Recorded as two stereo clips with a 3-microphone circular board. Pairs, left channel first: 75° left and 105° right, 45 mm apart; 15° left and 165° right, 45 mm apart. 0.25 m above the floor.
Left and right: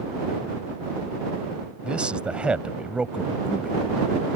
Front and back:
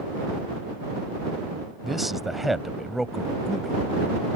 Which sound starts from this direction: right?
A man speaking, at 1.8 s.